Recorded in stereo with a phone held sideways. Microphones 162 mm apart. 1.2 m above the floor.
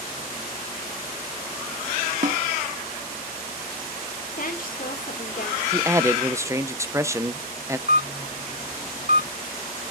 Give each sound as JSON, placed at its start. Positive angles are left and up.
{"t": 2.2, "sound": "a snare drum", "side_deg": -55, "distance_m": 1.5}
{"t": 4.4, "sound": "a woman speaking", "side_deg": 60, "distance_m": 2.5}
{"t": 5.7, "sound": "a man speaking", "side_deg": -20, "distance_m": 0.8}
{"t": 7.9, "sound": "a camera shutter", "side_deg": -55, "distance_m": 4.5}